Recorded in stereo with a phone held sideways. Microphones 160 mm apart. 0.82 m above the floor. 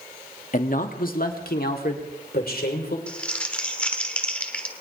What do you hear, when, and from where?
0.5 s a man speaking: 55° left (ahead or behind), 1.2 m; by 3.0 s 75° left (ahead or behind), 3 m
3.1 s crumpling: 10° left (ahead or behind), 1.2 m